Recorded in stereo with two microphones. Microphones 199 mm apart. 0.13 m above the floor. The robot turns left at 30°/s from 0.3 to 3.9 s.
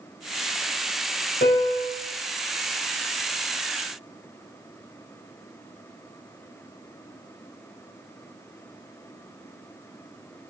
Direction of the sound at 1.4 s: 55° left (ahead or behind).